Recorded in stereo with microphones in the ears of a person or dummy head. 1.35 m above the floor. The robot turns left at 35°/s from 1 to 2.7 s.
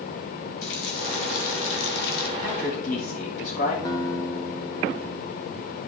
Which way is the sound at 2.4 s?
60° left (ahead or behind).